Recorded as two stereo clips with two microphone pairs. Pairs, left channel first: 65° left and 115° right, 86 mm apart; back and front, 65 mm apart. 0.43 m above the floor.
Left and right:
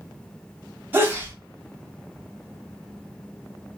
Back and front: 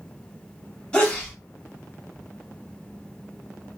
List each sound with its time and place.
0.9 s a sneeze: 125° right, 1.1 m